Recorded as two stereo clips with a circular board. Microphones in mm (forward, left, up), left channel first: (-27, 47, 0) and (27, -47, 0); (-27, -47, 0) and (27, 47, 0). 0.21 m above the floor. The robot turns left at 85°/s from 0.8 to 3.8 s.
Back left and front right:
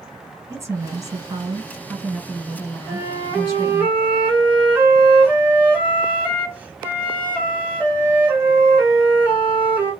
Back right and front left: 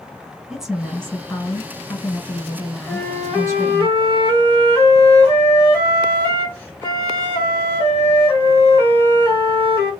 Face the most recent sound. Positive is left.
turn(degrees=-120)